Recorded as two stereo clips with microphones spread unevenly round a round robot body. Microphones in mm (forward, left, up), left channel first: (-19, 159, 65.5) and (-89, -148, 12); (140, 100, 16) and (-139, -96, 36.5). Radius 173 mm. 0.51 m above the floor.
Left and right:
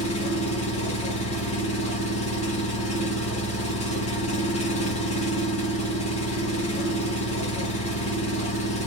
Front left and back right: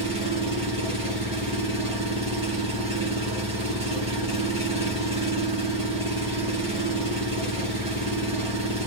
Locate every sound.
0.0 s an engine running: 150° left, 1.2 m